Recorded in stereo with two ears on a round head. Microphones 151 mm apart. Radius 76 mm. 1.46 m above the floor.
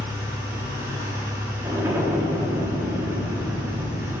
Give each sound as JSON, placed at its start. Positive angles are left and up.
{"t": 0.0, "sound": "an engine running", "side_deg": -15, "distance_m": 1.2}
{"t": 1.6, "sound": "an explosion", "side_deg": -15, "distance_m": 1.0}